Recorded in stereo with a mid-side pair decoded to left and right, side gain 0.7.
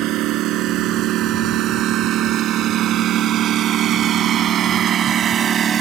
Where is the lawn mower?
60° right; by 5.8 s 35° right.